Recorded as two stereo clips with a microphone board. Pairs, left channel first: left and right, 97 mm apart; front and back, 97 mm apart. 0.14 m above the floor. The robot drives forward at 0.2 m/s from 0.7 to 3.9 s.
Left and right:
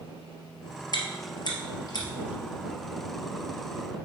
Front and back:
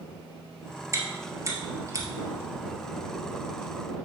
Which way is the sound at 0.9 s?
125° left.